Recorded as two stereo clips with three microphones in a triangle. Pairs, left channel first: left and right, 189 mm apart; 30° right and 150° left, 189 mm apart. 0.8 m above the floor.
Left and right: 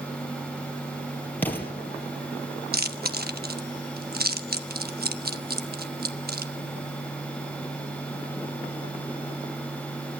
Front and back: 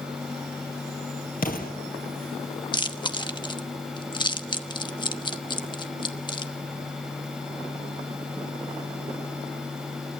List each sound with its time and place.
1.4 s an explosion: 10° left, 3 m
2.7 s chewing: 90° right, 1.1 m